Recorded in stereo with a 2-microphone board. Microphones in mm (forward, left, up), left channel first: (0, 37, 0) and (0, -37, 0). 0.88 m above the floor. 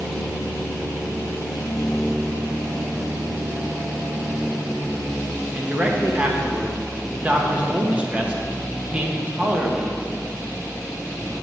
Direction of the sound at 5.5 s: 20° right (ahead or behind).